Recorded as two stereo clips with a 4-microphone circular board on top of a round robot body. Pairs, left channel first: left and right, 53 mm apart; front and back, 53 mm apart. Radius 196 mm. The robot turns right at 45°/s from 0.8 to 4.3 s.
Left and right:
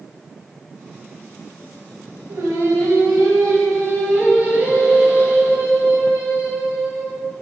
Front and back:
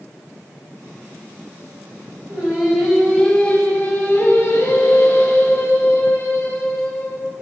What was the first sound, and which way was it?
Singing, 115° right.